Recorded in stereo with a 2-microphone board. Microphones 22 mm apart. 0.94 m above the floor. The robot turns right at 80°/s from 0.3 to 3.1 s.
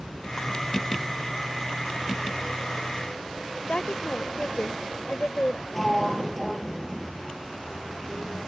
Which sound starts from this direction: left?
A woman speaking, at 3.7 s.